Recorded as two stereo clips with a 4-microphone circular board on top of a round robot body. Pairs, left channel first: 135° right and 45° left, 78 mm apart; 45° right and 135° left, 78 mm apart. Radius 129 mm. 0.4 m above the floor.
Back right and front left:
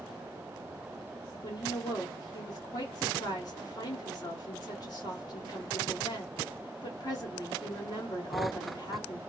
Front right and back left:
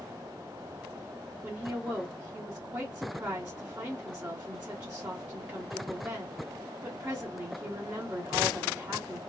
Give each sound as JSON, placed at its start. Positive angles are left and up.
{"t": 1.4, "sound": "a woman speaking", "azimuth_deg": -155, "distance_m": 1.4}